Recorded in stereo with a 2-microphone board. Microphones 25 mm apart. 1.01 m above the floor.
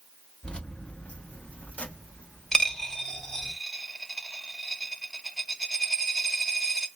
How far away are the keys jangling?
About 1.1 m.